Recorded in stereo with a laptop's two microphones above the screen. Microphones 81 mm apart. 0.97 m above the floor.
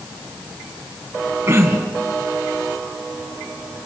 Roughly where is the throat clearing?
Right.